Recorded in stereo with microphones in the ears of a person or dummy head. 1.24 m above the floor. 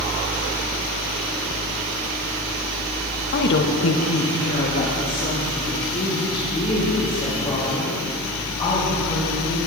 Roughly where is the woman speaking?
Left.